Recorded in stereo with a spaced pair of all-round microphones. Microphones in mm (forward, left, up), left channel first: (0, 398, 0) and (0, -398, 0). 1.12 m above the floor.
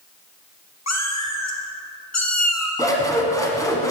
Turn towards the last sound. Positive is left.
turn(degrees=5)  # may be behind; listen again after turning